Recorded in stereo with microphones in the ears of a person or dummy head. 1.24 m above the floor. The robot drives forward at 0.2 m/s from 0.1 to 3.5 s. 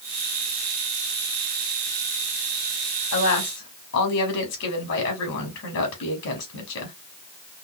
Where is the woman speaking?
70° left (ahead or behind), 2.5 m.